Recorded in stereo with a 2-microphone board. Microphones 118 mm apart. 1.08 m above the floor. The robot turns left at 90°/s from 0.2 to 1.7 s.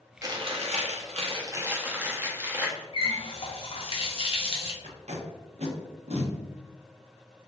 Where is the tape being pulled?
65° right (ahead or behind), 0.8 m.